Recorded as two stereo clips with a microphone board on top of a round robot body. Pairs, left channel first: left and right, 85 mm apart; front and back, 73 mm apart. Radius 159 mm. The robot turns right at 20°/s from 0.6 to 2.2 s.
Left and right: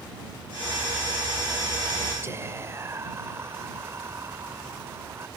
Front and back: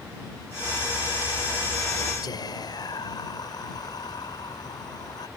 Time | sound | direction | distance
2.2 | whispering | 30° right | ?